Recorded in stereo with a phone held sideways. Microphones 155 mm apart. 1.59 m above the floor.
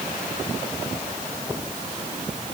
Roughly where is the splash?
No splash in this recording.